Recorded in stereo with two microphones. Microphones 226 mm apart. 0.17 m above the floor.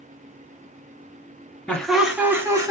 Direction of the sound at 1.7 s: 5° left (ahead or behind).